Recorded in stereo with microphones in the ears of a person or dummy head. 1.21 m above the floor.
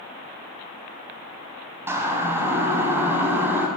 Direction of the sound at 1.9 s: 15° right (ahead or behind).